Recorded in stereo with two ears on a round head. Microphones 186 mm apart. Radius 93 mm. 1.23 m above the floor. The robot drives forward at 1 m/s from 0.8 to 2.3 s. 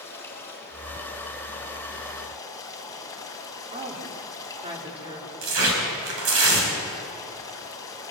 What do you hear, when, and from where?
0.0 s running water: 10° left (ahead or behind), 4 m; by 8.1 s 15° left (ahead or behind), 2.5 m
3.7 s a woman speaking: 25° right (ahead or behind), 3.5 m
5.4 s tearing paper: 75° right (ahead or behind), 5 m